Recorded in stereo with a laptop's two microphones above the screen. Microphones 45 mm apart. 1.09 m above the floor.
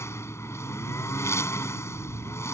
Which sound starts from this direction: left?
A lawn mower, at 0.0 s.